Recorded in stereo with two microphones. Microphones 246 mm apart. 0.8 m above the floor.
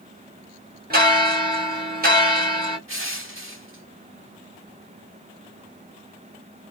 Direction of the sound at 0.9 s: 40° right (ahead or behind).